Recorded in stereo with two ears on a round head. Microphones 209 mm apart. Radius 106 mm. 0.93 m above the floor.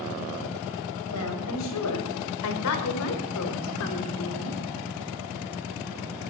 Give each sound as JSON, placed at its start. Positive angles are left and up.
{"t": 1.1, "sound": "a woman speaking", "side_deg": 85, "distance_m": 4.5}